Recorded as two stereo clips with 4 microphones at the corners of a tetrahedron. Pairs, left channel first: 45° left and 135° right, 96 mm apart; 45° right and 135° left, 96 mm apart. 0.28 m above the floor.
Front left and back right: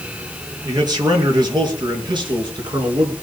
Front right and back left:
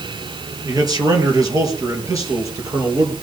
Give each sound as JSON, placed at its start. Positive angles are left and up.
{"t": 0.7, "sound": "a man speaking", "azimuth_deg": 180, "distance_m": 5.5}